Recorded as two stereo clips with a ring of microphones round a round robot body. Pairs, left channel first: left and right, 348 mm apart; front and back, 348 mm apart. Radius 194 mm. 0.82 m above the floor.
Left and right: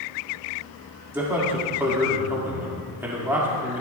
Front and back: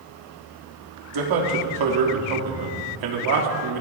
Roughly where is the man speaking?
Behind.